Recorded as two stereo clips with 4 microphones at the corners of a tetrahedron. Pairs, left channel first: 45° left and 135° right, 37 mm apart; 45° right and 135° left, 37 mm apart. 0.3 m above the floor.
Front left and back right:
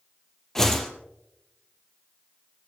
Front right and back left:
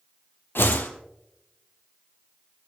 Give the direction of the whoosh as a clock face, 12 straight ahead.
1 o'clock.